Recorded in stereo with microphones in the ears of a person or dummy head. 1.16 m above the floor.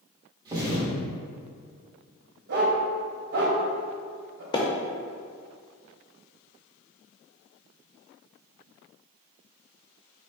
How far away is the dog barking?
About 1.2 m.